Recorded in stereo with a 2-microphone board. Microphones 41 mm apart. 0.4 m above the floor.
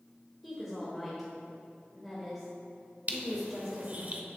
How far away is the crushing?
About 0.6 m.